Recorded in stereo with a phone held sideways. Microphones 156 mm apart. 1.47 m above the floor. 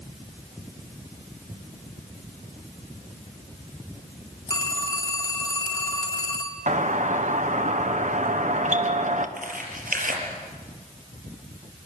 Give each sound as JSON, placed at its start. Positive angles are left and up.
{"t": 4.5, "sound": "a phone ringing", "side_deg": 25, "distance_m": 2.5}
{"t": 6.7, "sound": "a doorbell", "side_deg": -55, "distance_m": 1.6}
{"t": 9.4, "sound": "tearing paper", "side_deg": -70, "distance_m": 5.0}